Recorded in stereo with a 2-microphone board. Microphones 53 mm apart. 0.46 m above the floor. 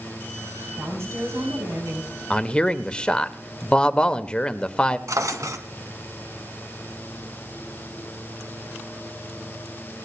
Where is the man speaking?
20° left (ahead or behind), 1.2 m.